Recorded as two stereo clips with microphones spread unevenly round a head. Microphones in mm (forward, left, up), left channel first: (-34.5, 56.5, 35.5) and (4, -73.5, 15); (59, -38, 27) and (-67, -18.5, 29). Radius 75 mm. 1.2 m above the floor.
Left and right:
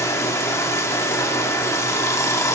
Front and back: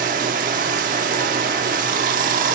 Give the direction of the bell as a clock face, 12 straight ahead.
No bell in this recording.